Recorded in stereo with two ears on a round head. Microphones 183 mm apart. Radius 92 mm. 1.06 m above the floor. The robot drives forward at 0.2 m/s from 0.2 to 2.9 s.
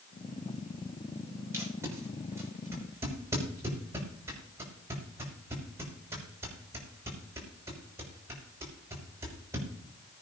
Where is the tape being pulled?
15° right (ahead or behind), 5.5 m.